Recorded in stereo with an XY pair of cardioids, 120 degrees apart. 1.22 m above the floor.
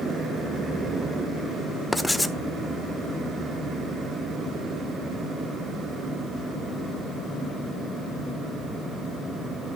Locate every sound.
1.9 s writing: 5° left, 0.9 m